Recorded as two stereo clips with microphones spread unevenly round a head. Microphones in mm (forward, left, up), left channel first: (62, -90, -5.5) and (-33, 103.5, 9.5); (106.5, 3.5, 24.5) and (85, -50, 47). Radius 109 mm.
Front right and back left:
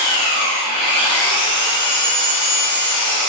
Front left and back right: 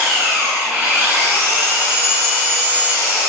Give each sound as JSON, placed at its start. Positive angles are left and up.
{"t": 0.0, "sound": "an engine running", "azimuth_deg": -130, "distance_m": 1.8}